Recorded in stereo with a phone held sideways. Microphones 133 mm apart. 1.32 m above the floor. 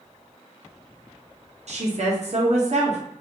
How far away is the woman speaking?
About 0.8 m.